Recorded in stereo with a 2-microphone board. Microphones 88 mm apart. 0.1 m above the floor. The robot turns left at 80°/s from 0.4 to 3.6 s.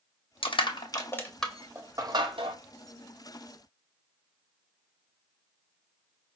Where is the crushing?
75° left (ahead or behind), 0.8 m; by 2.6 s 75° right (ahead or behind), 0.8 m.